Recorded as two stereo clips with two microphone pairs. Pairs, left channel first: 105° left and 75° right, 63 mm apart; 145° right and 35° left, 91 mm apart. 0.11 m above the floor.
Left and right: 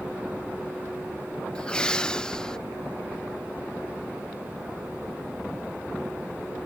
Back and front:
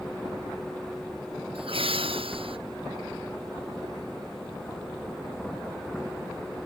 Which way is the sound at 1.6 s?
30° left.